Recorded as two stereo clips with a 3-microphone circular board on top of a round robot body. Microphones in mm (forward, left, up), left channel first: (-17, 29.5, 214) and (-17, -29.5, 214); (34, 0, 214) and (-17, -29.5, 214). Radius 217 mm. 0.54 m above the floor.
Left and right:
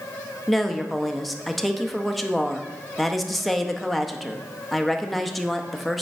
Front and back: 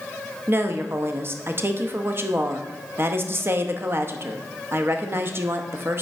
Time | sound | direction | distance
0.5 | a woman speaking | straight behind | 0.9 m